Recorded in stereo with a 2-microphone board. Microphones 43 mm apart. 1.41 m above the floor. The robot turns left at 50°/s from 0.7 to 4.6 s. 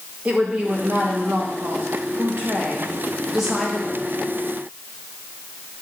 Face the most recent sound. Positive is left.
turn(degrees=130)